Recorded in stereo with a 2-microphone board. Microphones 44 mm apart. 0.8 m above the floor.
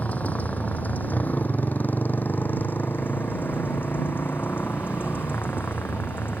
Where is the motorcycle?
40° left (ahead or behind); by 6.4 s 55° left (ahead or behind).